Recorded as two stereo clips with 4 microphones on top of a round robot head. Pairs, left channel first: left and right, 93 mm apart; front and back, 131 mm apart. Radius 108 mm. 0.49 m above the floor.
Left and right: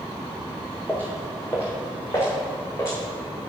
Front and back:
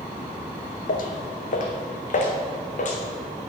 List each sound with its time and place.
0.9 s footsteps: 10° left, 1.2 m; by 3.0 s 25° left, 2.5 m